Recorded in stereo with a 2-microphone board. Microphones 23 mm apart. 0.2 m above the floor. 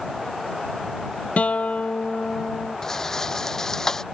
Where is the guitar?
75° left (ahead or behind).